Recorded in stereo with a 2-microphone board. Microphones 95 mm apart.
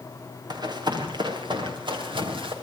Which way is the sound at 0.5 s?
45° right (ahead or behind).